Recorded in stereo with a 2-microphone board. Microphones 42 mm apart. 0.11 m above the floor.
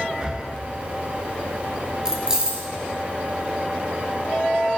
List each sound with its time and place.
0.2 s breathing: 20° right (ahead or behind), 0.6 m
2.0 s keys jangling: 15° right (ahead or behind), 1.3 m